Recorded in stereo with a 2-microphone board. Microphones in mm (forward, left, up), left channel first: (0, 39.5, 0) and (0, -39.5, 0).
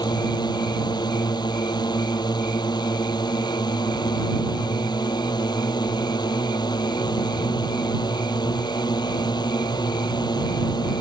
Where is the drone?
65° left (ahead or behind).